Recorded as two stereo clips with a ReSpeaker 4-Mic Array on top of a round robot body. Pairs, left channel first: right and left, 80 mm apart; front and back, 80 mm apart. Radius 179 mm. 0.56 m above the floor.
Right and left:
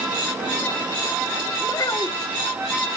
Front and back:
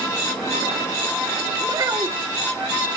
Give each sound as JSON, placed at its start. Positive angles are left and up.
{"t": 1.6, "sound": "a child speaking", "azimuth_deg": -130, "distance_m": 1.5}